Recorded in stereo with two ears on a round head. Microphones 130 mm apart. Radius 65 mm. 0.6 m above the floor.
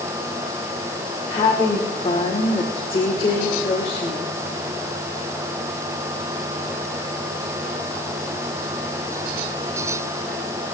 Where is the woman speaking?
40° left (ahead or behind), 2 m.